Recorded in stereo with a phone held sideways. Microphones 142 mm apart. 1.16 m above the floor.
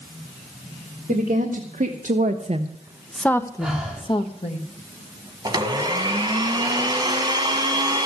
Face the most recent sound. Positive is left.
turn(degrees=-30)  # may be behind; listen again after turning